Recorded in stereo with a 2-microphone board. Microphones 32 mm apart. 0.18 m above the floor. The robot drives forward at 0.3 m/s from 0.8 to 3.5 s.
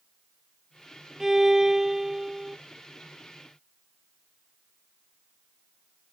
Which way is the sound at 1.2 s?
10° right (ahead or behind).